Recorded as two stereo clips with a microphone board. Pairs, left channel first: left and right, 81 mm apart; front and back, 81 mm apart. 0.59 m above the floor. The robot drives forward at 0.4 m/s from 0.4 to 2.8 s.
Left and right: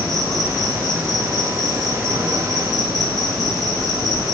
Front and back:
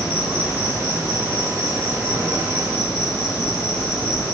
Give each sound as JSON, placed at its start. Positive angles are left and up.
{"t": 0.0, "sound": "an insect", "azimuth_deg": 180, "distance_m": 1.9}